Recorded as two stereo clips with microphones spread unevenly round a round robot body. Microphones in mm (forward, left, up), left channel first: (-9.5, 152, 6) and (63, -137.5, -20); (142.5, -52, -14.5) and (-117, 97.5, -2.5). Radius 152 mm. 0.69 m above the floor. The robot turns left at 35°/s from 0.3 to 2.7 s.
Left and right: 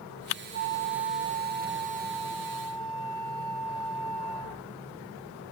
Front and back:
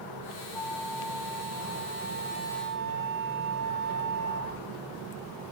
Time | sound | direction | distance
0.5 | a flute | 85° right | 1.5 m